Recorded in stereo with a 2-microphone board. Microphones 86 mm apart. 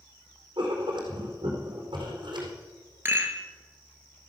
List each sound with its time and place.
0.6 s writing: 60° right (ahead or behind), 4 m
3.0 s a rattle: 25° right (ahead or behind), 2 m